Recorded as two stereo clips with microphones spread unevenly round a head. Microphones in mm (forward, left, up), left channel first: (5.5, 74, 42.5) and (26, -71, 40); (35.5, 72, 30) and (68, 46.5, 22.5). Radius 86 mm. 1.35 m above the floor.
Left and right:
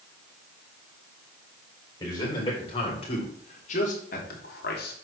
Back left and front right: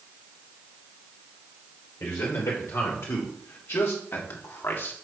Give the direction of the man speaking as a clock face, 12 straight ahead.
7 o'clock.